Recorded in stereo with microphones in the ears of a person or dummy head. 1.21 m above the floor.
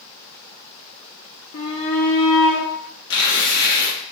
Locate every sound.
1.5 s a shout: 65° left (ahead or behind), 0.9 m; by 2.7 s 40° left (ahead or behind), 1.2 m
3.1 s tearing paper: 55° left (ahead or behind), 0.9 m